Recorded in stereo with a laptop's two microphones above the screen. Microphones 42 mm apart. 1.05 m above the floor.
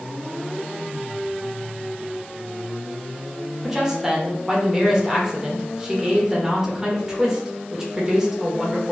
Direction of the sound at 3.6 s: 15° right (ahead or behind).